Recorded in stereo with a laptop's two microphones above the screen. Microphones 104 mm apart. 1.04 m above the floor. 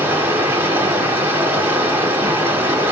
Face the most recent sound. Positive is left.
turn(degrees=-20)  # may be behind; listen again after turning